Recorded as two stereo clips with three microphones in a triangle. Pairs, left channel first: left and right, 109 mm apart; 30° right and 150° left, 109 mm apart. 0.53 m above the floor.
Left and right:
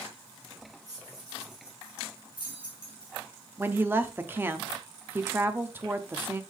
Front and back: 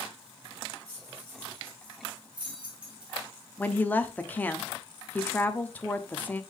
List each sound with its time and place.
0.9 s keys jangling: 145° right, 3 m; by 3.1 s 125° right, 4 m
3.6 s a woman speaking: 70° right, 0.6 m